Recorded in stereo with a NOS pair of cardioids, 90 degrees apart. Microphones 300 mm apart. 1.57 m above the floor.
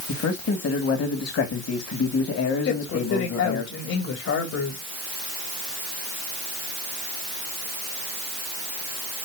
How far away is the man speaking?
About 2 m.